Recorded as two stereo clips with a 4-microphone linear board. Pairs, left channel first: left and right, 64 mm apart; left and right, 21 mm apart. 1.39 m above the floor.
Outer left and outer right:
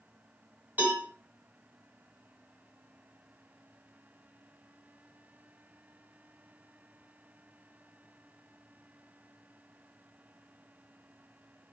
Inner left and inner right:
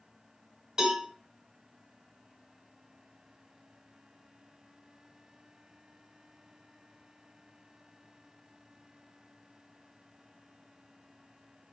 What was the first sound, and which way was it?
A cowbell, 30° right (ahead or behind).